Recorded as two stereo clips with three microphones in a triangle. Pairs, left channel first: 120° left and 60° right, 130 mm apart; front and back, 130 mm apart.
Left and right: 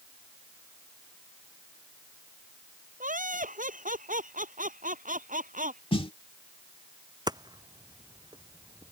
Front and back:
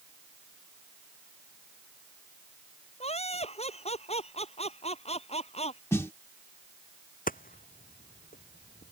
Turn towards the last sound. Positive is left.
turn(degrees=0)